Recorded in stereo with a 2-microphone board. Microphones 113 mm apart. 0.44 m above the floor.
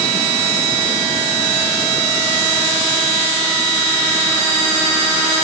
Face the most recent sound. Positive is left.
No sound to turn to.